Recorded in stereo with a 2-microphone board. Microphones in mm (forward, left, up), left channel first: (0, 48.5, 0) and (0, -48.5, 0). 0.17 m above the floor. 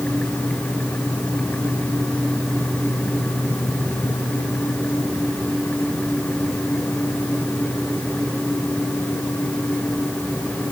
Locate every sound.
Only background noise.